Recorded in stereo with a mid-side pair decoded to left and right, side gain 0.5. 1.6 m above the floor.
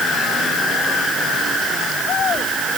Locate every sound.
Only background noise.